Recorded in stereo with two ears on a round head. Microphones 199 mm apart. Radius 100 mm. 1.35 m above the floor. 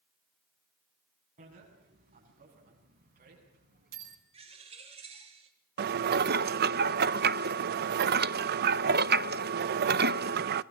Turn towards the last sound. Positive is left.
turn(degrees=-45)  # may be behind; listen again after turning